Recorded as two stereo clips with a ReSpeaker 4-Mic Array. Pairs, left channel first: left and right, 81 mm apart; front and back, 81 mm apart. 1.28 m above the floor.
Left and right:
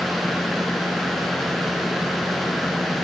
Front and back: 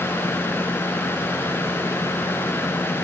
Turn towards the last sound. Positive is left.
No sound to turn to.